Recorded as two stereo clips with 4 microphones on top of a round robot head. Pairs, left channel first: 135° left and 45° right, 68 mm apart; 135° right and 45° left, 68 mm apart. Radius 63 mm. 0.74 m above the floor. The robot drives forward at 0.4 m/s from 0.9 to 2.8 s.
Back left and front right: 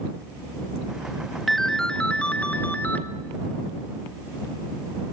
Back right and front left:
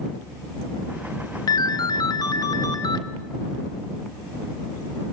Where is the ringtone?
135° right, 0.6 m; by 3.0 s 160° right, 1.1 m.